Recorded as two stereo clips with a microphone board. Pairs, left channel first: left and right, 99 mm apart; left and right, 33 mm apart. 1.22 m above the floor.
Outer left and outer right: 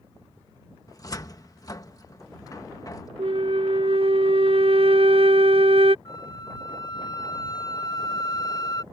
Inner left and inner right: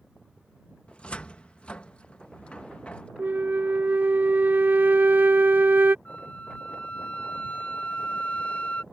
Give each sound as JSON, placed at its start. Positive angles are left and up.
{"t": 0.9, "sound": "a cupboard door", "side_deg": 35}
{"t": 3.2, "sound": "a flute", "side_deg": -65}
{"t": 6.0, "sound": "a flute", "side_deg": 40}